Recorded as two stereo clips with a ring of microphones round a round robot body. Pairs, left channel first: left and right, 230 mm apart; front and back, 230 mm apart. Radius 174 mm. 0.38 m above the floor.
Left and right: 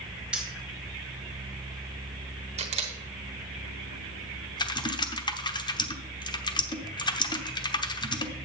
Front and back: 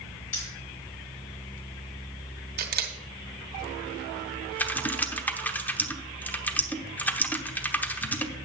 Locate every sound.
0.3 s keys jangling: 5° right, 3.5 m
2.6 s a camera shutter: 145° right, 1.3 m
4.6 s typing on a keyboard: 70° left, 1.1 m